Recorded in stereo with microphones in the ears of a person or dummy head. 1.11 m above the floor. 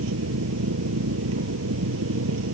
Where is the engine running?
80° right.